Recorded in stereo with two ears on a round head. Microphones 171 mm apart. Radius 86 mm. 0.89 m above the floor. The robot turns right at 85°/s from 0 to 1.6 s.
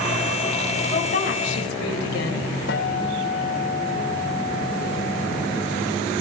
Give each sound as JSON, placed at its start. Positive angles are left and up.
{"t": 0.9, "sound": "a woman speaking", "azimuth_deg": 20, "distance_m": 4.5}
{"t": 2.7, "sound": "a guitar", "side_deg": 65, "distance_m": 3.5}